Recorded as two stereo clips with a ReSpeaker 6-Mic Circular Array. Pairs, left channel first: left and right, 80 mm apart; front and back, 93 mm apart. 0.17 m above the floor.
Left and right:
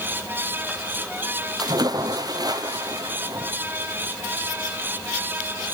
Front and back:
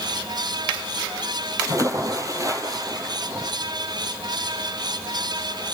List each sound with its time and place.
1.6 s a splash: 125° right, 2.5 m